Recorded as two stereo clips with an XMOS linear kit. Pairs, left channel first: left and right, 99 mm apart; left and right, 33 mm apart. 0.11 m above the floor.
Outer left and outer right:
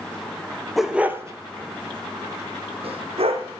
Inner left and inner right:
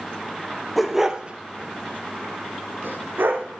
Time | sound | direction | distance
0.8 | a dog barking | centre (ahead or behind) | 1.0 m